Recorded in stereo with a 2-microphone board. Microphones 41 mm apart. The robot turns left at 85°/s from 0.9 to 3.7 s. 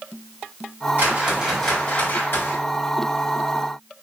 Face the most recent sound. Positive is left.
turn(degrees=0)